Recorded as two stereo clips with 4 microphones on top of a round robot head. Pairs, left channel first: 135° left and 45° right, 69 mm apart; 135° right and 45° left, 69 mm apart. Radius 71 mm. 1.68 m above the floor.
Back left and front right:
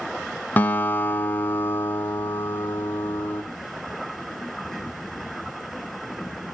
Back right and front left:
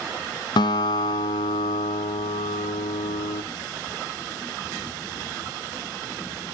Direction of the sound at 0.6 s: 160° right.